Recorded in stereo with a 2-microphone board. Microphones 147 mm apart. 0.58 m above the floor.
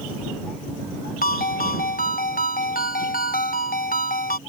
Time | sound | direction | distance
1.2 | a ringtone | 75° left (ahead or behind) | ?